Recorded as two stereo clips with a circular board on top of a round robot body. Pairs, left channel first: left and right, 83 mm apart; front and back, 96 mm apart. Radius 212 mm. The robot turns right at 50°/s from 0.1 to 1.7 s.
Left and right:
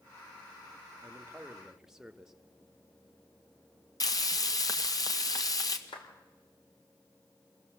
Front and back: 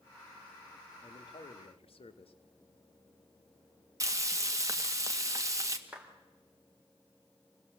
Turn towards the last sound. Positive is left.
turn(degrees=100)